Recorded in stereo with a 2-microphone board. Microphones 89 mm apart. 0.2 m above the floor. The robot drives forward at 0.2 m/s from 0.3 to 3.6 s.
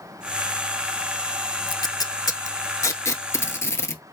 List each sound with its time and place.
1.7 s tape being pulled: 50° left (ahead or behind), 0.5 m; by 4.0 s 30° left (ahead or behind), 0.8 m